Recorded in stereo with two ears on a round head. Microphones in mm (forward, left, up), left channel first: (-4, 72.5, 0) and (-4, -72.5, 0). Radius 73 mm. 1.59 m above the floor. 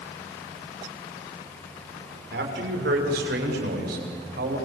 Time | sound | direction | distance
2.3 | a man speaking | 75° right (ahead or behind) | 6.5 m